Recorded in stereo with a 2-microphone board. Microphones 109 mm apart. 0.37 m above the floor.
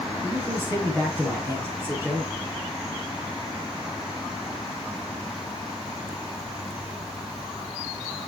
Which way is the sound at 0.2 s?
25° right (ahead or behind).